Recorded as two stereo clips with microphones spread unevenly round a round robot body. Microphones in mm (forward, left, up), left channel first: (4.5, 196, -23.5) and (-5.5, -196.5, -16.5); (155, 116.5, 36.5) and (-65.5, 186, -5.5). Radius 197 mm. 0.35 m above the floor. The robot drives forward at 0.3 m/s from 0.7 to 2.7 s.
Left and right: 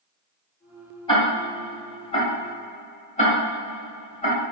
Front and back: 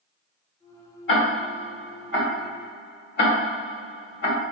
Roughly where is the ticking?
Ahead.